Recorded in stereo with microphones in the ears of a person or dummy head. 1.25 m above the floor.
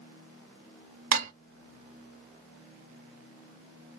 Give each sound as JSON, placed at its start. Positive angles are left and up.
{"t": 1.1, "sound": "dishes clattering", "side_deg": -45, "distance_m": 0.6}